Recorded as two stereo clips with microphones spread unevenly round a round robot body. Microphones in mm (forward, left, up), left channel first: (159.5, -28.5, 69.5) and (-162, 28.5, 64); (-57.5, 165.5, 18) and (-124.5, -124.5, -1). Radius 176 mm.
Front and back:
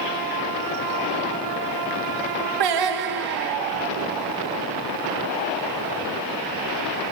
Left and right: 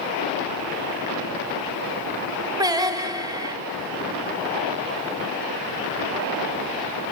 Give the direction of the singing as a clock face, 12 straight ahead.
6 o'clock.